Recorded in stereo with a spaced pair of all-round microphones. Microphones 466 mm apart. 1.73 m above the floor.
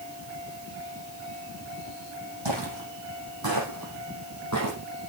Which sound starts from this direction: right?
Footsteps, at 2.5 s.